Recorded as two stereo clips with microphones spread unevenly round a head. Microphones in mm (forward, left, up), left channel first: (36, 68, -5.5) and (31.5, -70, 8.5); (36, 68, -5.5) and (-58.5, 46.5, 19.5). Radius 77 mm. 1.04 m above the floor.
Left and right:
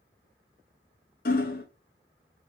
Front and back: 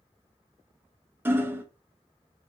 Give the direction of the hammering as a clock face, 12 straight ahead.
8 o'clock.